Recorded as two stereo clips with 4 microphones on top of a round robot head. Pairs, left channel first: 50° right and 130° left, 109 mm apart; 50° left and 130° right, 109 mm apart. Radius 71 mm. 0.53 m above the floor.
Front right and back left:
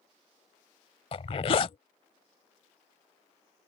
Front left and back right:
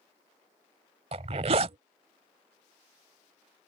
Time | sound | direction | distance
1.1 | a zipper | 90° right | ?